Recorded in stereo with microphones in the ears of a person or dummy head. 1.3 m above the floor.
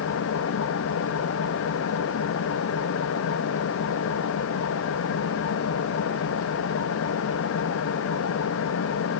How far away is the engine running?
About 1.3 m.